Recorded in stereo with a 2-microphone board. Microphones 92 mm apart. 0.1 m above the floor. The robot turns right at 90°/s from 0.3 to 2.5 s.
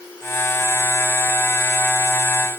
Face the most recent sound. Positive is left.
No sound to turn to.